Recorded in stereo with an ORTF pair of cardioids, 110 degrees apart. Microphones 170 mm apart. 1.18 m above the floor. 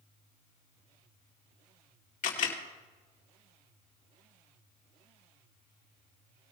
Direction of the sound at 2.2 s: 50° left.